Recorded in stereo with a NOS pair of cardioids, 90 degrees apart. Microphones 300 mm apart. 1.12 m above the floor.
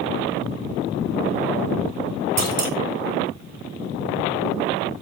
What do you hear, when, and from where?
2.4 s a clunk: 55° right, 1.9 m